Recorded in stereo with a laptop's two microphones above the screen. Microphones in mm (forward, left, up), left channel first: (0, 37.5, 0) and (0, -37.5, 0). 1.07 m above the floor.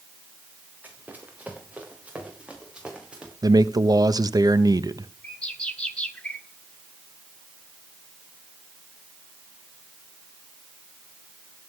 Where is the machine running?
No machine running in this recording.